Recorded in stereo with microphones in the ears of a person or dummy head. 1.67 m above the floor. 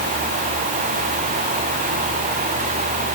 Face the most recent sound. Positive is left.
No sound to turn to.